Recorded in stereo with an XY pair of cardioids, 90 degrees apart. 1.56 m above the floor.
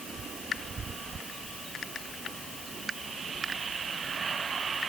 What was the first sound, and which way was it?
Only background noise.